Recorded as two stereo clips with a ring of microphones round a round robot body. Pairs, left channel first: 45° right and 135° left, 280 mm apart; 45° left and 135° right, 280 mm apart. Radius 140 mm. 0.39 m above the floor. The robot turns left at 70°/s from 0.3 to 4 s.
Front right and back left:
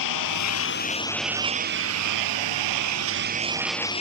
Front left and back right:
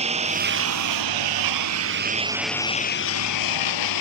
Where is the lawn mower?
65° right; by 4.0 s 25° left.